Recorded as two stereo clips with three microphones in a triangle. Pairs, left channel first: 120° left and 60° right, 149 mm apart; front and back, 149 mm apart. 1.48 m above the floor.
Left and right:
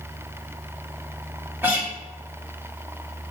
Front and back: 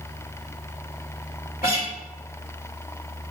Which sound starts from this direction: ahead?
A guitar, at 1.6 s.